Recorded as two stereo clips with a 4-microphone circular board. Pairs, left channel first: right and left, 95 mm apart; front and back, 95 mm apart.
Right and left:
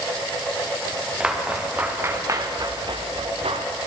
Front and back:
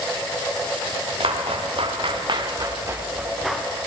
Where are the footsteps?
170° left, 3 m; by 3.7 s 85° left, 1.7 m.